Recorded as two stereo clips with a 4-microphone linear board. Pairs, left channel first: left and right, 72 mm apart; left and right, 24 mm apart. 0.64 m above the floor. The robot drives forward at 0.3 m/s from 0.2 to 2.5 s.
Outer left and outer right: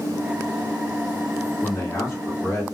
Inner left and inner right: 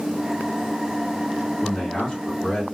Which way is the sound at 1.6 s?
50° left (ahead or behind).